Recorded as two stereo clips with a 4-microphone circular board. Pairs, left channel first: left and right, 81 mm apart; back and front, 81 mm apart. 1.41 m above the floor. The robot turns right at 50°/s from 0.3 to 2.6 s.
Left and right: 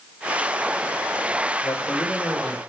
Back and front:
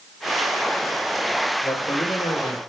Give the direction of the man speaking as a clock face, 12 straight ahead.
8 o'clock.